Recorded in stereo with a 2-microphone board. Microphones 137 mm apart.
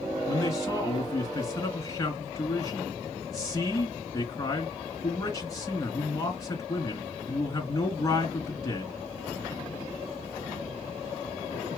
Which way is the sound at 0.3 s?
25° left (ahead or behind).